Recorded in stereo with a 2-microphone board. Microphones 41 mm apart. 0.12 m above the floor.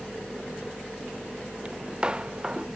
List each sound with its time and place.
1.6 s footsteps: 25° right (ahead or behind); by 2.7 s 20° right (ahead or behind)